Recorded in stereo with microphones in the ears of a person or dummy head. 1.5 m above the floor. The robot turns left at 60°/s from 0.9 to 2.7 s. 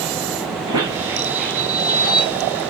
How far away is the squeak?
About 2 m.